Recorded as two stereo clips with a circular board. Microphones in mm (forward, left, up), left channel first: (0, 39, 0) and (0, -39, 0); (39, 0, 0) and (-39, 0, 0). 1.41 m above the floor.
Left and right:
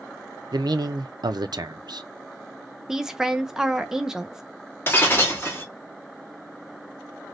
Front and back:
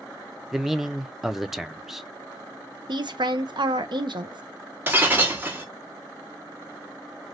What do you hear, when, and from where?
0.5 s a man speaking: 95° right, 0.5 m
2.9 s a woman speaking: 175° right, 0.7 m
4.9 s breaking glass: 130° left, 1.0 m